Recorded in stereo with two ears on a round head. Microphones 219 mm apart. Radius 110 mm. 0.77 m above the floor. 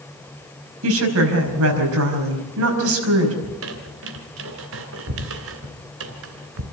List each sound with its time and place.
0.8 s a woman speaking: 60° right (ahead or behind), 5 m
3.4 s a squeak: 65° right (ahead or behind), 2.5 m